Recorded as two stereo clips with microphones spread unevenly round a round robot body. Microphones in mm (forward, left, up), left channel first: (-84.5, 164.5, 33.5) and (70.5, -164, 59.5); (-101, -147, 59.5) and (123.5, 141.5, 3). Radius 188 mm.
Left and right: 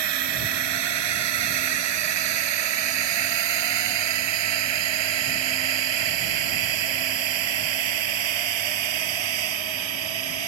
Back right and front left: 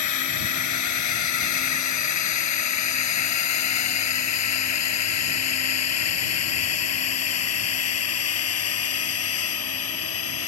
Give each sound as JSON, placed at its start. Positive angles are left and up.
{"t": 0.0, "sound": "a drone", "azimuth_deg": -85}